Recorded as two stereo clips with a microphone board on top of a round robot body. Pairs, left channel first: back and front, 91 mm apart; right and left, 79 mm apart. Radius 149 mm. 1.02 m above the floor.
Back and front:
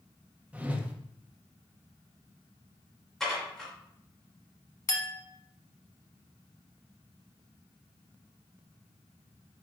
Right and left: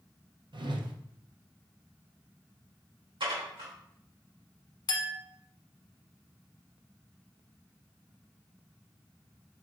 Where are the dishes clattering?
95° left, 3 m.